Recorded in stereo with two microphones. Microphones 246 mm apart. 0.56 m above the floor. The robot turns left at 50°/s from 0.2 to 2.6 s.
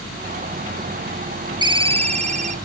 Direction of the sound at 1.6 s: 15° right (ahead or behind).